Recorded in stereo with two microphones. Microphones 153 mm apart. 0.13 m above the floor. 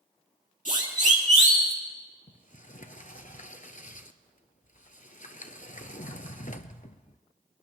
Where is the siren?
60° right (ahead or behind), 3.5 m; by 1.7 s 45° right (ahead or behind), 3.5 m.